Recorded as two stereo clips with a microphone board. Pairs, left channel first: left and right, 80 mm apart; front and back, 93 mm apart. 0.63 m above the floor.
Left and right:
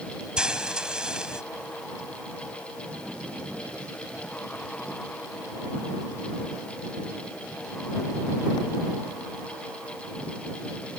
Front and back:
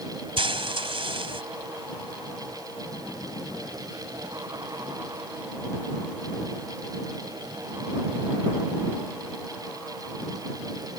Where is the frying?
170° right.